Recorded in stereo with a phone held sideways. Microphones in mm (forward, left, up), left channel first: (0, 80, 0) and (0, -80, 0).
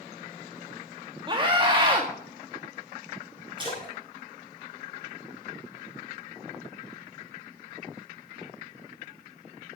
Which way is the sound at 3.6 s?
30° right (ahead or behind).